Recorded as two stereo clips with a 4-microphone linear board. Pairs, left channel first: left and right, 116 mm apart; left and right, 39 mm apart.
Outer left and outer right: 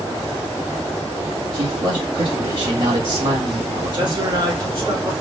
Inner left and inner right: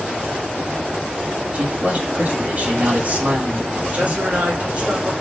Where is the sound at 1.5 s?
50° right (ahead or behind), 2.5 m.